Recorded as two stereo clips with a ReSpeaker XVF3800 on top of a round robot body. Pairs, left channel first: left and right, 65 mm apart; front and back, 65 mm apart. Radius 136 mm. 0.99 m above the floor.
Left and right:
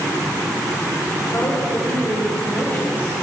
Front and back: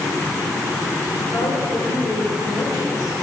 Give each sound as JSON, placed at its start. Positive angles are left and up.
{"t": 1.3, "sound": "a woman speaking", "azimuth_deg": 40, "distance_m": 3.5}